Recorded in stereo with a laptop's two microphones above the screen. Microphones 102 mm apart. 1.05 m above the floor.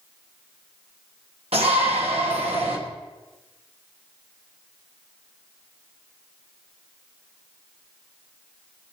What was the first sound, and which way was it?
A shout, 85° right.